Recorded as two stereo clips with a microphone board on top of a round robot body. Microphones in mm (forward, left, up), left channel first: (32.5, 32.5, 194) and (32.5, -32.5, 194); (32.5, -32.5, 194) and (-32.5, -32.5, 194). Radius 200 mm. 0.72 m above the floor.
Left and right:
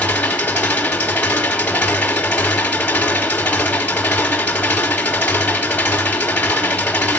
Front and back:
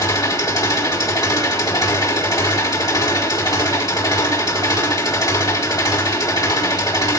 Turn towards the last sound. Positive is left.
turn(degrees=25)